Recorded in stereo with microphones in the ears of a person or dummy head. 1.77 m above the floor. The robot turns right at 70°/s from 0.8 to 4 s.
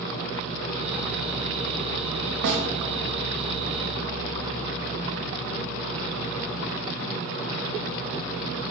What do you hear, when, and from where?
2.4 s a snare drum: 65° right (ahead or behind), 0.7 m; by 2.6 s 60° right (ahead or behind), 0.7 m